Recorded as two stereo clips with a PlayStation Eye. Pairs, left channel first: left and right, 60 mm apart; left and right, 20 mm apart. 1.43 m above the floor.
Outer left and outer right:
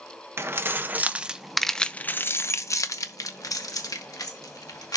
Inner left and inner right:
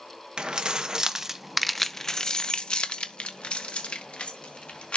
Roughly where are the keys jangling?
Right.